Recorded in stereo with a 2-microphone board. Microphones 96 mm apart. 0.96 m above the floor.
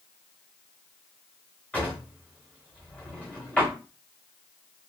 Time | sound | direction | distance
1.7 | a drawer | 20° left (ahead or behind) | 1.4 m